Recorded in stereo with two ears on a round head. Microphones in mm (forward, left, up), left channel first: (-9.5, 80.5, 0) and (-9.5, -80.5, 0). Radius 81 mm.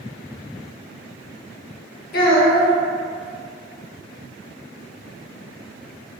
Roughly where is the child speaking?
Left.